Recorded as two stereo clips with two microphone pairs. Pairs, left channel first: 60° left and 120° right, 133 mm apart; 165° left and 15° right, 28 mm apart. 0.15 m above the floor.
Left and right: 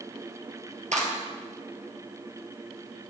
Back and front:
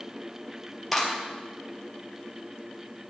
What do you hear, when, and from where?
0.9 s a clap: 110° right, 3 m